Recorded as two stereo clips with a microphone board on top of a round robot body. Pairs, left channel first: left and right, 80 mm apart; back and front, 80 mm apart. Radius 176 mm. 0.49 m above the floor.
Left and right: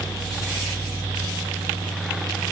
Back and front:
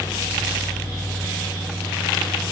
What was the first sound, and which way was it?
Only background noise.